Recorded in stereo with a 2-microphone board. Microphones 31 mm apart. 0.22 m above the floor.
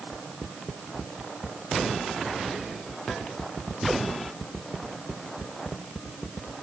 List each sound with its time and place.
Only background noise.